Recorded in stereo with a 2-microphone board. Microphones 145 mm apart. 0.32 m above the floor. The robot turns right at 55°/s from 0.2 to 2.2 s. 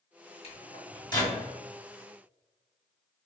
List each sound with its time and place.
0.4 s a microwave: 45° left (ahead or behind), 0.9 m; by 1.4 s 20° left (ahead or behind), 0.9 m